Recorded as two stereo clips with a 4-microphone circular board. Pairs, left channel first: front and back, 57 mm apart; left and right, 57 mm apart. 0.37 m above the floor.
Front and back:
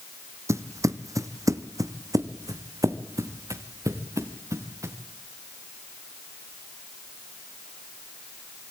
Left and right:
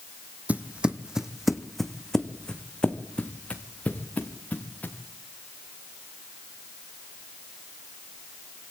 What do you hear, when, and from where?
0.5 s footsteps: 150° right, 1.2 m; by 5.0 s 150° left, 3 m